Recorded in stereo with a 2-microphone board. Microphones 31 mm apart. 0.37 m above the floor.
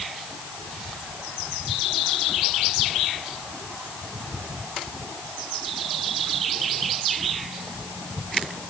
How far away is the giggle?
No giggle in this recording.